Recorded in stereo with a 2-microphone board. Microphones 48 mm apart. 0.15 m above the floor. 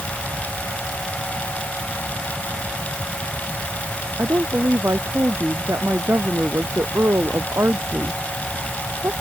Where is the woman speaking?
75° right (ahead or behind).